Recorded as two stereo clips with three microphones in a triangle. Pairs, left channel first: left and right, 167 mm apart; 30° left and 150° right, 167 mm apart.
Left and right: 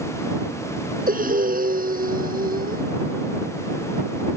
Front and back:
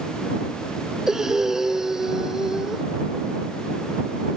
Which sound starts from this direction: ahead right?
Breathing, at 1.1 s.